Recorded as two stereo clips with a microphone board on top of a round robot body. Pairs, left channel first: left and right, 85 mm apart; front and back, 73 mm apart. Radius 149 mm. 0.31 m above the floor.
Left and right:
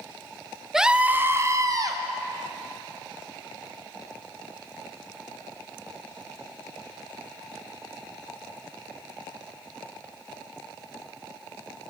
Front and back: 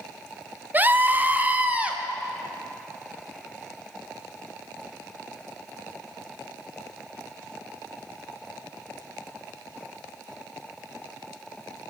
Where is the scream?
170° right, 0.9 m; by 2.0 s 110° right, 1.2 m.